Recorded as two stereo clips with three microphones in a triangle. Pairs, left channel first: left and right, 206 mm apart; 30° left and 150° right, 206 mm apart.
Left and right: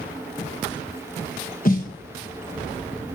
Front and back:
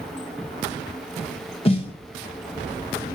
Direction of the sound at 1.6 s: 75° left.